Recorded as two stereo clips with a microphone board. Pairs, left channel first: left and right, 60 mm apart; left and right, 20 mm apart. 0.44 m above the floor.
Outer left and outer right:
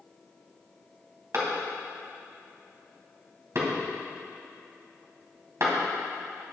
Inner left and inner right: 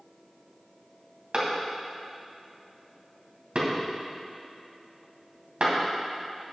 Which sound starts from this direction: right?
A clap, at 1.3 s.